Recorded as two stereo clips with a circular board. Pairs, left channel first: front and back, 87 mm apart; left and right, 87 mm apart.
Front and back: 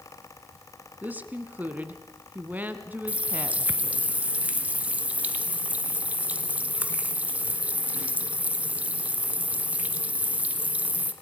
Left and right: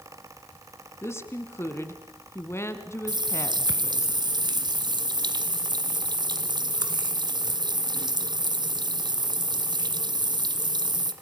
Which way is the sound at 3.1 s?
110° right.